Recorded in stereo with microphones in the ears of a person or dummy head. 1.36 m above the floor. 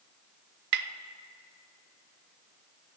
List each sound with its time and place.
0.7 s tapping: 55° right (ahead or behind), 0.6 m